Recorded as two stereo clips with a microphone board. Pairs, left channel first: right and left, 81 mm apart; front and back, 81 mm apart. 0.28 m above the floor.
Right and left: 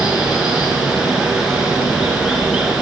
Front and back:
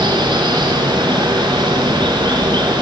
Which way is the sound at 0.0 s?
170° left.